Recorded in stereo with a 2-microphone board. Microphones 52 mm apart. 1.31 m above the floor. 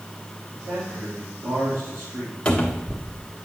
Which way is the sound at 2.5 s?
20° left (ahead or behind).